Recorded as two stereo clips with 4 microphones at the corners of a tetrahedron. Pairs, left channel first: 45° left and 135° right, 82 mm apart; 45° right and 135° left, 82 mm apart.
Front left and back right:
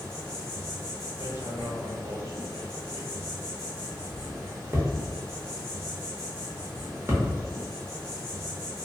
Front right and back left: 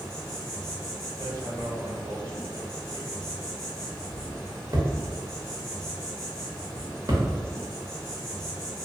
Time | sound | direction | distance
0.0 | an insect | 140° right | 1.9 m
1.2 | hammering | 175° left | 0.7 m